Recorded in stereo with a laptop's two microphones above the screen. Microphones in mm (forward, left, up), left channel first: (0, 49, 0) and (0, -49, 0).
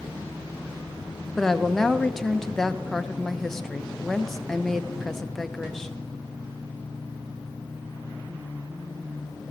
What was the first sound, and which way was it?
A woman speaking, 5° left (ahead or behind).